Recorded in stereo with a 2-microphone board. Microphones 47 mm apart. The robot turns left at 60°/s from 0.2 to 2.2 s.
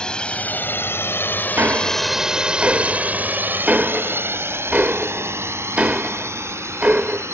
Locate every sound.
0.0 s a drone: 20° left (ahead or behind); by 7.3 s 75° right (ahead or behind)
1.6 s ticking: 60° right (ahead or behind); by 7.2 s 30° right (ahead or behind)